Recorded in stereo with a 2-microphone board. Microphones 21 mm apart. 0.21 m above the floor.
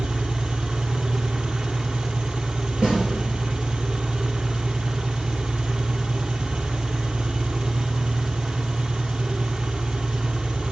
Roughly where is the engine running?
Right.